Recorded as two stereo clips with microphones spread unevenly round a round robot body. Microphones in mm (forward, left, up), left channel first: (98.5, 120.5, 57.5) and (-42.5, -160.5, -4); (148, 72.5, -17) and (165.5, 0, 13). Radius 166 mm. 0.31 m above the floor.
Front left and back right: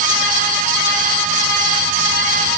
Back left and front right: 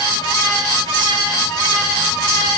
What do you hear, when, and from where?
Only background noise.